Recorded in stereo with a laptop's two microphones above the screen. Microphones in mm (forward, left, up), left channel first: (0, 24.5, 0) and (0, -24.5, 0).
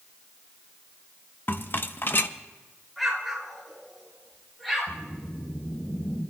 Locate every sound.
1.5 s a rattle: 45° left (ahead or behind), 0.6 m
3.0 s an explosion: 5° left (ahead or behind), 3 m
4.9 s a whoosh: 25° left (ahead or behind), 7 m